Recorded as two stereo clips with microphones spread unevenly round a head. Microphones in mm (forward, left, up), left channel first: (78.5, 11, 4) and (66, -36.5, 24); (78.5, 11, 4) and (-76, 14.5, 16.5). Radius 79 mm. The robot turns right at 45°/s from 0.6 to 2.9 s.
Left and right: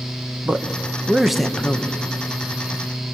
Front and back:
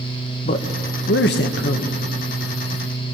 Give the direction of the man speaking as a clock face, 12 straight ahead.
1 o'clock.